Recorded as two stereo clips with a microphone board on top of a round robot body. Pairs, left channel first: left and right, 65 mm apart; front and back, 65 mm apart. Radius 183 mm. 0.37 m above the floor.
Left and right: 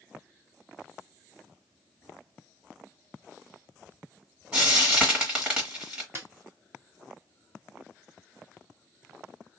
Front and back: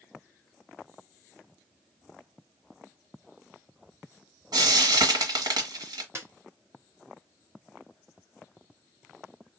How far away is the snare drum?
About 2 m.